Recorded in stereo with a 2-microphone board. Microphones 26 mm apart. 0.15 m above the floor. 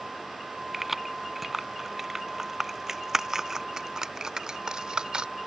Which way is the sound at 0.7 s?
10° right (ahead or behind).